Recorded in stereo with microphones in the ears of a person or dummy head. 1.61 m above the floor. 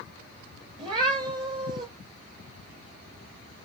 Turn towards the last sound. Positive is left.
turn(degrees=-25)  # may be behind; listen again after turning